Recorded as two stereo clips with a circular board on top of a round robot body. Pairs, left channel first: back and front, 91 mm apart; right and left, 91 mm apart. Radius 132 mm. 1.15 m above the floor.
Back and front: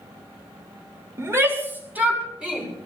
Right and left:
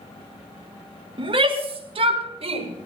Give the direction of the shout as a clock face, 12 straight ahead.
10 o'clock.